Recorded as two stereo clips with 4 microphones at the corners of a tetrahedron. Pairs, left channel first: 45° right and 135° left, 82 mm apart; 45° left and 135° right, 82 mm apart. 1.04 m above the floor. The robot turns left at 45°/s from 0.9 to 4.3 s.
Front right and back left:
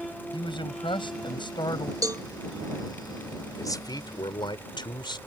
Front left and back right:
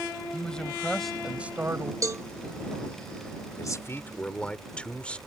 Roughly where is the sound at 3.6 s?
Ahead.